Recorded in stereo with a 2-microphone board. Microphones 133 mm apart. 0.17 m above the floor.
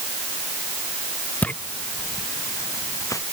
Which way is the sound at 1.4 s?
10° left (ahead or behind).